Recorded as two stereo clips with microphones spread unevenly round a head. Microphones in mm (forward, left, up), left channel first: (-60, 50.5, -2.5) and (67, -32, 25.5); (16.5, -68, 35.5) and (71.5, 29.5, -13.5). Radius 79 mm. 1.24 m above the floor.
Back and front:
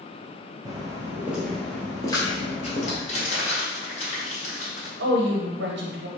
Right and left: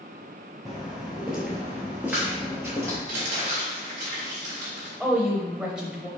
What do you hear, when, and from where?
0.7 s footsteps: 65° right, 1.5 m; by 3.0 s 160° left, 1.5 m
3.1 s crumpling: 100° left, 1.8 m
5.0 s a woman speaking: 20° right, 0.7 m